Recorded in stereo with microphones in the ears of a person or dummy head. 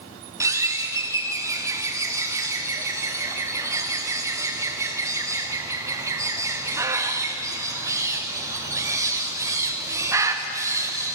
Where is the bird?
15° right (ahead or behind), 0.7 m.